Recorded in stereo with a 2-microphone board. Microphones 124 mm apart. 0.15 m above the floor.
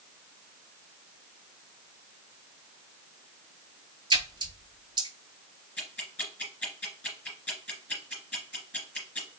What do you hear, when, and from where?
4.1 s a splash: 40° right (ahead or behind), 0.6 m
5.8 s ticking: 10° left (ahead or behind), 2.5 m